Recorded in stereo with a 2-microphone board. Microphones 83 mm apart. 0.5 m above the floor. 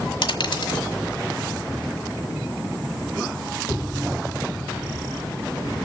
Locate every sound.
0.2 s a dropped coin: 65° left (ahead or behind), 1.5 m